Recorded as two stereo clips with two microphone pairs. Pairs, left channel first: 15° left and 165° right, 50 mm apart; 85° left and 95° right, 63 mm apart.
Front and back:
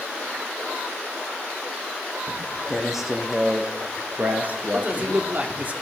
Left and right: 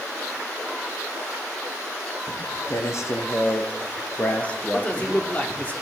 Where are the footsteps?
100° left, 2.5 m; by 5.7 s straight behind, 1.8 m.